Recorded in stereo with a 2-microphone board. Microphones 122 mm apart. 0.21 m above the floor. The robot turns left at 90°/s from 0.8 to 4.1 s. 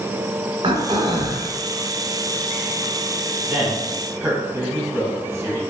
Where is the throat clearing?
80° right, 0.8 m; by 1.5 s 140° right, 0.8 m.